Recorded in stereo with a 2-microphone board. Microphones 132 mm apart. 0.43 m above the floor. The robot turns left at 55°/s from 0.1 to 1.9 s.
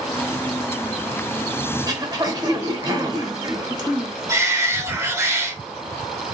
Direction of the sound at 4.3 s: 20° right (ahead or behind).